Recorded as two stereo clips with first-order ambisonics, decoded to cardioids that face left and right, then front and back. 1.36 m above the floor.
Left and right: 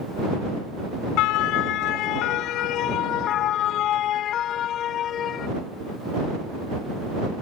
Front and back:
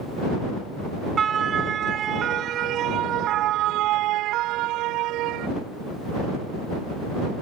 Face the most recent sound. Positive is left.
turn(degrees=145)